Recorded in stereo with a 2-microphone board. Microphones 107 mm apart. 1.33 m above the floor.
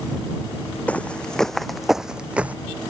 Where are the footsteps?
15° left (ahead or behind); by 2.5 s 15° right (ahead or behind).